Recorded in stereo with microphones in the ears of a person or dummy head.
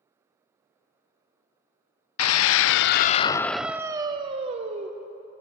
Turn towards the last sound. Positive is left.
turn(degrees=-40)  # may be behind; listen again after turning